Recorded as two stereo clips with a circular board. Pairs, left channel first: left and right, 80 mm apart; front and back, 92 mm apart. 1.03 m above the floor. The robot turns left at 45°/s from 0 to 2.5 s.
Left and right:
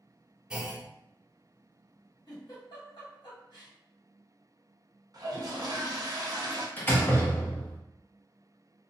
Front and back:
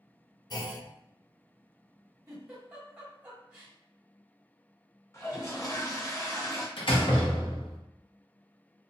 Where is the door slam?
25° left, 0.7 m.